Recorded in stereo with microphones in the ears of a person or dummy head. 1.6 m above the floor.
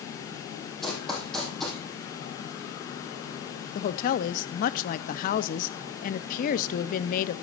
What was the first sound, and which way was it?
Running footsteps, centre (ahead or behind).